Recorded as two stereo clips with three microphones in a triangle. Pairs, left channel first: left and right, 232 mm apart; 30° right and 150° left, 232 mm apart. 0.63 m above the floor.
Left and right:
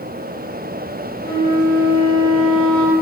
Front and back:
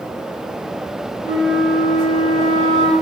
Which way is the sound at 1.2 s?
160° left.